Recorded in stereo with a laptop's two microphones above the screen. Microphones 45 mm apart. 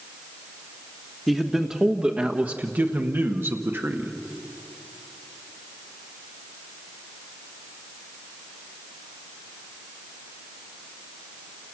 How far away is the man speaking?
About 1.2 m.